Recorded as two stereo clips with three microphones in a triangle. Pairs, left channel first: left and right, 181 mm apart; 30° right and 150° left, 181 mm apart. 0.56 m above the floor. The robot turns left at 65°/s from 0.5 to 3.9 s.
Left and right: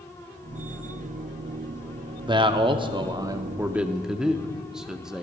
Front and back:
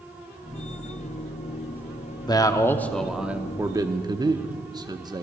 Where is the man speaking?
65° right, 0.6 m; by 5.2 s 170° right, 0.6 m.